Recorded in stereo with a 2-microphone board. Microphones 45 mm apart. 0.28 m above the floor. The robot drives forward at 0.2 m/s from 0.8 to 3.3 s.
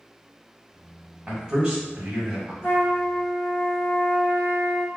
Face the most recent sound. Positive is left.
turn(degrees=65)  # may be behind; listen again after turning